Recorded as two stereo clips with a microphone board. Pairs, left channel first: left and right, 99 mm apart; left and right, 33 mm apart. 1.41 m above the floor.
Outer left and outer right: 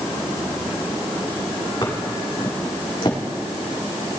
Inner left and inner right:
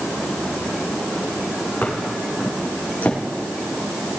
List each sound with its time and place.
1.8 s footsteps: 50° left (ahead or behind), 4 m; by 3.2 s 65° left (ahead or behind), 3.5 m